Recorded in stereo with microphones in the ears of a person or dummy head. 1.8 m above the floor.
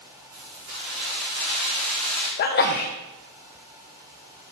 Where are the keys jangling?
65° right (ahead or behind), 3 m; by 2.3 s 30° right (ahead or behind), 3 m.